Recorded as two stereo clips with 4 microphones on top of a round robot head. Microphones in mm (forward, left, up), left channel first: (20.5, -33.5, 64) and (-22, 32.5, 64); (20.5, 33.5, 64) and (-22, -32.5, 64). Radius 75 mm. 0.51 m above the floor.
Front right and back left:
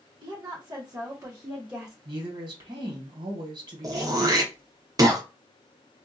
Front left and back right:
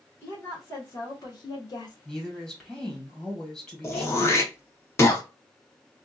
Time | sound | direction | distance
0.2 | a woman speaking | 115° left | 1.5 m
2.0 | a woman speaking | 140° left | 1.9 m
3.8 | throat clearing | 100° left | 0.9 m